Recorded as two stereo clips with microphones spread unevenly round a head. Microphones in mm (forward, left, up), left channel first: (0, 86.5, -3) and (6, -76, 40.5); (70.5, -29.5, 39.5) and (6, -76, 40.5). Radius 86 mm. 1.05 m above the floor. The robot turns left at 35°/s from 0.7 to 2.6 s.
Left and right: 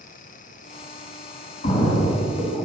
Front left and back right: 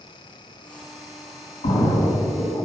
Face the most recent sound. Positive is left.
turn(degrees=0)